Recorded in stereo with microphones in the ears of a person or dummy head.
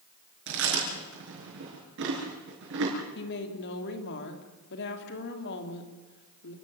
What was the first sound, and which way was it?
Chewing, 65° right (ahead or behind).